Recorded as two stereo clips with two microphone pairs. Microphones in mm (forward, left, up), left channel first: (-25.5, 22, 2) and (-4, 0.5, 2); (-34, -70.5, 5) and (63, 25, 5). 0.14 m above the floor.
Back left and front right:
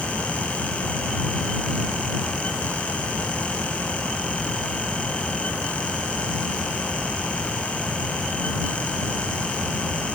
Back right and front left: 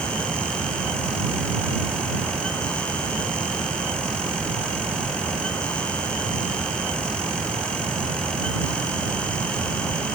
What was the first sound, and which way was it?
Only background noise.